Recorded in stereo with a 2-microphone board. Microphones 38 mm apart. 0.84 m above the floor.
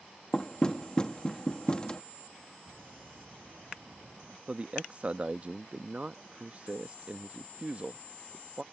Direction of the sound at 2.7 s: 85° right.